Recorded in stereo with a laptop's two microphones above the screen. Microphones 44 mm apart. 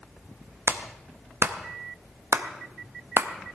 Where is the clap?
75° right (ahead or behind), 0.7 m.